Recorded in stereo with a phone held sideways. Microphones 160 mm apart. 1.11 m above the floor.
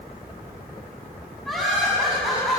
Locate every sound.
1.4 s laughter: centre (ahead or behind), 9 m